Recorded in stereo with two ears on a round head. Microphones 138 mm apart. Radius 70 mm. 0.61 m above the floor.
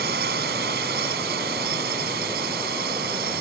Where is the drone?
65° right (ahead or behind).